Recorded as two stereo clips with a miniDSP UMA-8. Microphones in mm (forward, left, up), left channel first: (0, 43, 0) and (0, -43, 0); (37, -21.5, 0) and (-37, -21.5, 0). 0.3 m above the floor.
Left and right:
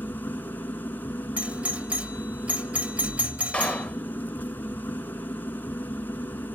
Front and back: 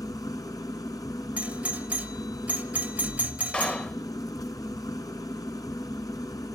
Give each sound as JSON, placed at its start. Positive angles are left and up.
{"t": 0.0, "sound": "an engine running", "azimuth_deg": 25, "distance_m": 1.4}
{"t": 1.4, "sound": "a doorbell", "azimuth_deg": -140, "distance_m": 1.4}
{"t": 3.5, "sound": "a clap", "azimuth_deg": 40, "distance_m": 0.8}